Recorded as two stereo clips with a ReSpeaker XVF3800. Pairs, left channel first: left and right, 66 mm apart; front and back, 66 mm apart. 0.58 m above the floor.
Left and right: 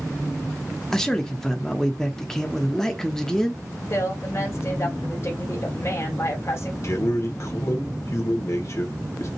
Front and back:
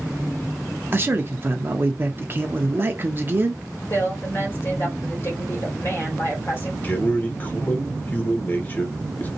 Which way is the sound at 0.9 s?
170° left.